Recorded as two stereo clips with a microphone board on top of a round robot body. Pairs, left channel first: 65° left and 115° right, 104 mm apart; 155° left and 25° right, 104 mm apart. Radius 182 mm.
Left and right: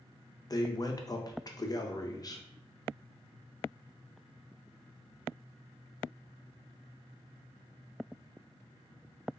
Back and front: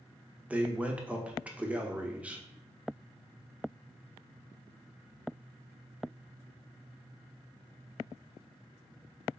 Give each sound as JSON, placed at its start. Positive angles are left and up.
{"t": 0.5, "sound": "a man speaking", "azimuth_deg": 50, "distance_m": 0.8}